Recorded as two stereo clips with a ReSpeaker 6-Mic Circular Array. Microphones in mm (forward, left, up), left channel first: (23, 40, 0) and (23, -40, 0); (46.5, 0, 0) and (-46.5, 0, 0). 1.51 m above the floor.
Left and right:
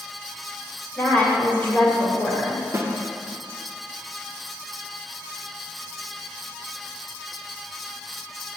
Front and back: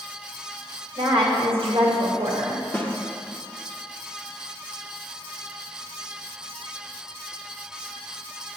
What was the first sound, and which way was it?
A woman speaking, 155° left.